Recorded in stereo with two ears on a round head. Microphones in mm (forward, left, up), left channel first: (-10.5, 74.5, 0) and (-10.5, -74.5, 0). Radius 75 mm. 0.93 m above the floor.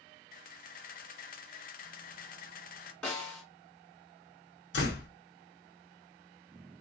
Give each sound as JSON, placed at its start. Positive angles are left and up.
{"t": 0.3, "sound": "a camera shutter", "side_deg": 55, "distance_m": 0.6}
{"t": 3.0, "sound": "a snare drum", "side_deg": 5, "distance_m": 2.5}
{"t": 4.7, "sound": "a door slam", "side_deg": 80, "distance_m": 1.1}